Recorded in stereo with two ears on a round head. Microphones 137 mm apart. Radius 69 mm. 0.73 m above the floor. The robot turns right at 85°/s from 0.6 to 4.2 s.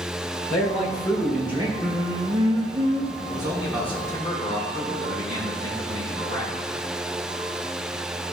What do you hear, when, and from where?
0.5 s a man speaking: 120° left, 2 m; by 1.7 s 145° right, 2 m
1.8 s singing: 175° right, 0.7 m; by 3.2 s 55° right, 0.7 m
3.3 s a man speaking: 40° right, 2.5 m; by 6.5 s 35° left, 2.5 m